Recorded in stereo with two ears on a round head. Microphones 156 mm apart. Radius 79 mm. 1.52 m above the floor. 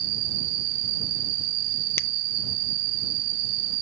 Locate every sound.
0.0 s an insect: 65° right (ahead or behind)
2.0 s a finger snap: 15° left (ahead or behind)